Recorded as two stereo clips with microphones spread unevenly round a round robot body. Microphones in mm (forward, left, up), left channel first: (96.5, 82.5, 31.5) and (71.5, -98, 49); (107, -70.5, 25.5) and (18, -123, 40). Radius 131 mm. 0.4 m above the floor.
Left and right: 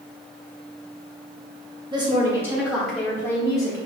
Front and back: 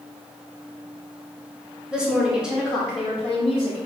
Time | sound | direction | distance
1.9 | a woman speaking | 55° right | 1.4 m